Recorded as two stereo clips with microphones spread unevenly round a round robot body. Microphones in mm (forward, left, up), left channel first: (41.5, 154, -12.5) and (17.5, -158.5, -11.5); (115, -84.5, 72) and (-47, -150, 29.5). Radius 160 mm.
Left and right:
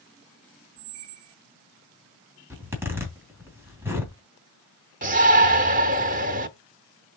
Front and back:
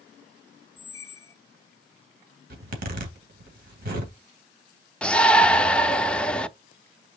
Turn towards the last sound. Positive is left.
turn(degrees=-85)